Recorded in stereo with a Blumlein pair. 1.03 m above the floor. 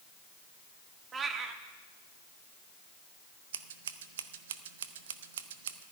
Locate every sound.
1.1 s a cat meowing: 20° right, 1.0 m
3.5 s scissors: 60° right, 0.8 m